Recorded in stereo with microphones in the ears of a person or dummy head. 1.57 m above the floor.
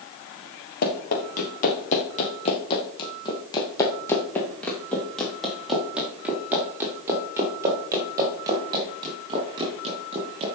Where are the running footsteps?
50° left (ahead or behind), 4 m; by 10.4 s 25° right (ahead or behind), 6.5 m.